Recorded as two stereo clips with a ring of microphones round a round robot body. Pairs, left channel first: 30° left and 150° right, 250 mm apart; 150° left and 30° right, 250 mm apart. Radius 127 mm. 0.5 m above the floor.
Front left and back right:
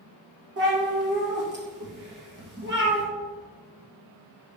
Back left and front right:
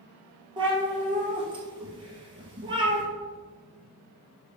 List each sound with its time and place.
0.6 s a cat meowing: 100° right, 2 m